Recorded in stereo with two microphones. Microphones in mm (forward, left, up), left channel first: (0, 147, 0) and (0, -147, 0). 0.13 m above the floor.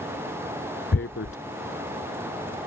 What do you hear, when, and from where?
0.9 s tearing paper: 45° left (ahead or behind)